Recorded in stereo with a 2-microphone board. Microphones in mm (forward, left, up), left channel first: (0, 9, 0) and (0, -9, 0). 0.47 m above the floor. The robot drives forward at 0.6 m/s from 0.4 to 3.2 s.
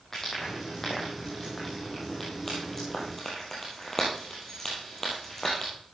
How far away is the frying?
About 7.5 m.